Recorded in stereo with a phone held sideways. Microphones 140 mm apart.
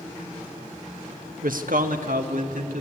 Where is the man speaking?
75° right (ahead or behind), 1.2 m; by 2.8 s 70° right (ahead or behind), 2.5 m.